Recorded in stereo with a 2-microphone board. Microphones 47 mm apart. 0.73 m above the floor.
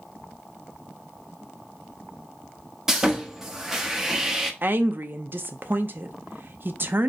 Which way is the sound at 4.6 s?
50° right (ahead or behind).